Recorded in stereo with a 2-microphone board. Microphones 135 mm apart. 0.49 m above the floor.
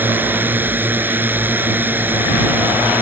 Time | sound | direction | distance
0.0 | a drone | 15° right (ahead or behind) | ?